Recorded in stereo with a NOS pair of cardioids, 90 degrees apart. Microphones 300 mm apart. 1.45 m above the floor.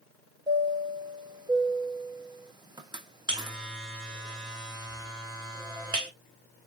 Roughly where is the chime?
Ahead.